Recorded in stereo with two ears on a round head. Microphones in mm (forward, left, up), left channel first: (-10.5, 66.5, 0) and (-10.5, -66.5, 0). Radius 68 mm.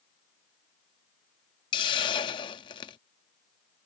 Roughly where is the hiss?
Left.